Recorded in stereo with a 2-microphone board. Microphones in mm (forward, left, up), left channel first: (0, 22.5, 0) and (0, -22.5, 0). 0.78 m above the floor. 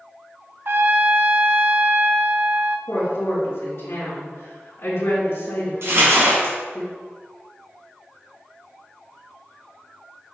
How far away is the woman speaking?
About 2.5 m.